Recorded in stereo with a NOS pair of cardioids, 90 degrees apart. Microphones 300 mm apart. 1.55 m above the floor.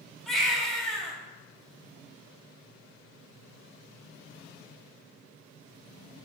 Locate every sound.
0.3 s a baby crying: straight ahead, 2.5 m